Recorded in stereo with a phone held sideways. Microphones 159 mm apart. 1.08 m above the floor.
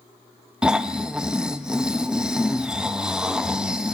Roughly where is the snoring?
Centre.